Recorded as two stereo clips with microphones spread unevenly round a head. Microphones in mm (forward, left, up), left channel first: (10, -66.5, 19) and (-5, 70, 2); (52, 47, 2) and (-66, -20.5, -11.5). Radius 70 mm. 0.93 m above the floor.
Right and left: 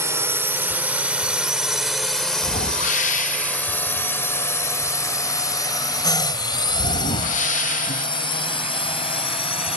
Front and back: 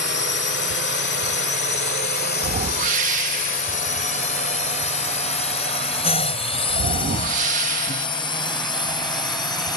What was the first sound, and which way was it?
A drone, 25° left.